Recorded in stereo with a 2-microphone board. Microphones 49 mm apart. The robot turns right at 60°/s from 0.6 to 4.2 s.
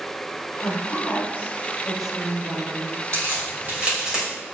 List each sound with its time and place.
0.6 s a woman speaking: 70° left (ahead or behind), 2.5 m; by 3.0 s 60° right (ahead or behind), 2.5 m
3.1 s a crack: 65° right (ahead or behind), 3 m; by 4.2 s 10° right (ahead or behind), 3 m